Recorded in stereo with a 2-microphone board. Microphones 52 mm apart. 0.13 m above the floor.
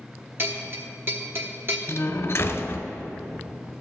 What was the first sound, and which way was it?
A bell, 45° right (ahead or behind).